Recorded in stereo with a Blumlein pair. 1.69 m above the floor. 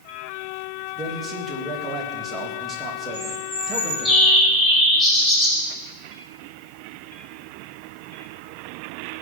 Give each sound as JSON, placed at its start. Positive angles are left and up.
{"t": 1.0, "sound": "a man speaking", "azimuth_deg": -20, "distance_m": 3.0}
{"t": 3.1, "sound": "a bird", "azimuth_deg": 10, "distance_m": 5.0}